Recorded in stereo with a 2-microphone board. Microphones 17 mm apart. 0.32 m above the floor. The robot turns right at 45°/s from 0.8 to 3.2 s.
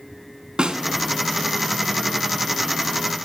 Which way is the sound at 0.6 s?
70° right (ahead or behind).